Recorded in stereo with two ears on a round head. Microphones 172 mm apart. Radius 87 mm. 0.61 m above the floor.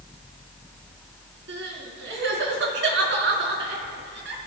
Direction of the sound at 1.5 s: 75° right (ahead or behind).